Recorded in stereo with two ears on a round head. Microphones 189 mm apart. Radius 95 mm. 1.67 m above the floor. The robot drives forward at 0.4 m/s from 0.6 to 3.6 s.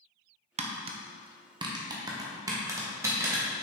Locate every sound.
0.6 s tapping: 30° right (ahead or behind), 0.7 m; by 3.4 s 15° right (ahead or behind), 1.8 m